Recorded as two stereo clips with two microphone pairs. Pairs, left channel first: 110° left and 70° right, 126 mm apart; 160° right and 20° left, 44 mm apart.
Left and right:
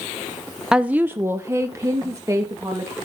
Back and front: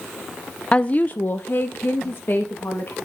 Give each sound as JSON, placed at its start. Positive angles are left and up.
{"t": 0.7, "sound": "a woman speaking", "azimuth_deg": -150, "distance_m": 0.5}